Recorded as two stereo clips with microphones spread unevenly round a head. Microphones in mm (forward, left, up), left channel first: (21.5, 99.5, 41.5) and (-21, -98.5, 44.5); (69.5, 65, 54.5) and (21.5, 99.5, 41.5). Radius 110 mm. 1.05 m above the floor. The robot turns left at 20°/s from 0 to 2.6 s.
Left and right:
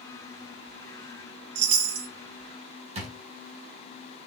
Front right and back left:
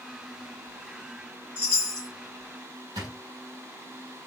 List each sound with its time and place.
1.6 s a chime: 110° right, 0.9 m; by 2.1 s 120° right, 0.9 m
3.0 s a drawer: 160° right, 1.2 m